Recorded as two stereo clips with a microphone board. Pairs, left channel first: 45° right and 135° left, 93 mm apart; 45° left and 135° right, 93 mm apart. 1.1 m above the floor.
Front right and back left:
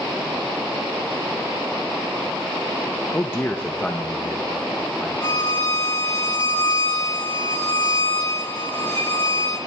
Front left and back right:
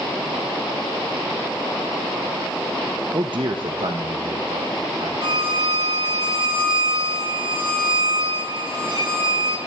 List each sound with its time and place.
3.1 s a man speaking: 105° right, 0.6 m; by 5.1 s 130° right, 1.5 m
5.2 s a violin: 100° right, 6 m